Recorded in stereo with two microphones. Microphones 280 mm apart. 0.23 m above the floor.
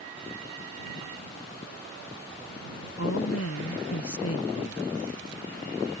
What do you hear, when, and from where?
3.0 s a woman speaking: 60° left (ahead or behind)